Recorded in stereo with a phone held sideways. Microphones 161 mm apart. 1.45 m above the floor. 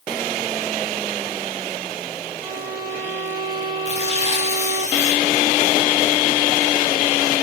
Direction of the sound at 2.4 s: 30° left (ahead or behind).